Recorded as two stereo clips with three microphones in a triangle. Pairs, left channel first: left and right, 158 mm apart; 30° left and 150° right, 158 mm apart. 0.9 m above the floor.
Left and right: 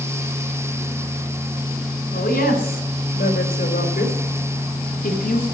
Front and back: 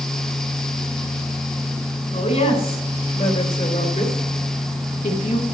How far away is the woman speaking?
About 4 m.